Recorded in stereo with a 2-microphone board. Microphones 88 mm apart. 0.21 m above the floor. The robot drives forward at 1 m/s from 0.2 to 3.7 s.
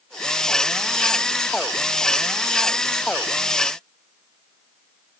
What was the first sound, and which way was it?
Only background noise.